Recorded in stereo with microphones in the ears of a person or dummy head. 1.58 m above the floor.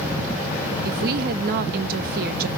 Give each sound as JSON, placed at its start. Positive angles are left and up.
{"t": 0.8, "sound": "a woman speaking", "side_deg": -55, "distance_m": 0.5}